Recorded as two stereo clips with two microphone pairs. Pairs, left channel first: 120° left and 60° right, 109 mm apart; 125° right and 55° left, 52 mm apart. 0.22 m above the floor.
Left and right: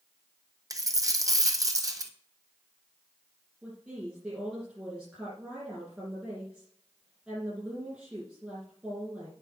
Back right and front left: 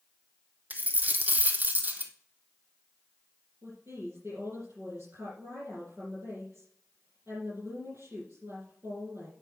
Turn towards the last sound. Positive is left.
turn(degrees=25)